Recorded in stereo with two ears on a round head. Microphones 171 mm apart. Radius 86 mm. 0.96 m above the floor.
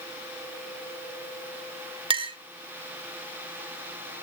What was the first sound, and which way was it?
A clink, 30° right (ahead or behind).